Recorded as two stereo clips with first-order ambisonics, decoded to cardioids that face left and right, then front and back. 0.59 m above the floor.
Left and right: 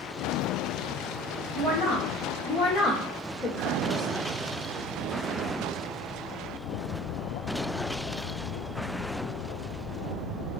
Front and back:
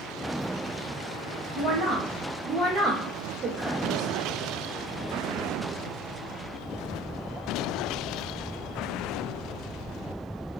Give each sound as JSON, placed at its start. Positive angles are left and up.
{"t": 1.5, "sound": "a woman speaking", "azimuth_deg": 85, "distance_m": 1.5}